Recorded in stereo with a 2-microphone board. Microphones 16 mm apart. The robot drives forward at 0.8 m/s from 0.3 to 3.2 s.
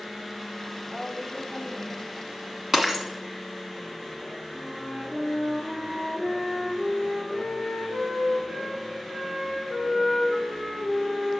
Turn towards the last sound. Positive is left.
turn(degrees=-75)  # may be behind; listen again after turning